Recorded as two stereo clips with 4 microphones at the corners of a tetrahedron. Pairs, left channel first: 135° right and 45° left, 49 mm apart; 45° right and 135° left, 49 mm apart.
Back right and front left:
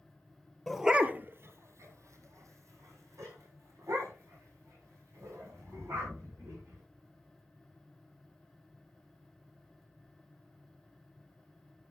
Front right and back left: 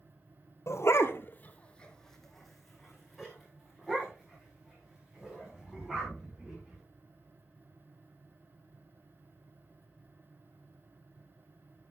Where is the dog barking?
50° right, 1.0 m; by 6.8 s 60° left, 8 m.